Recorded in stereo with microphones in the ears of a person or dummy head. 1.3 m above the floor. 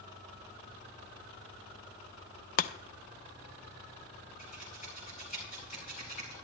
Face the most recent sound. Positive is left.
turn(degrees=45)  # may be behind; listen again after turning